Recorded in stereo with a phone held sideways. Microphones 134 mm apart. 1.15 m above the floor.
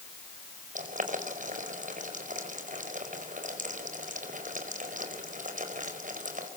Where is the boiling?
80° right, 5 m.